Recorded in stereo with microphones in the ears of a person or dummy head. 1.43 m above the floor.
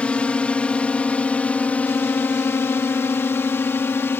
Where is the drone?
5° left (ahead or behind); by 4.2 s 10° left (ahead or behind).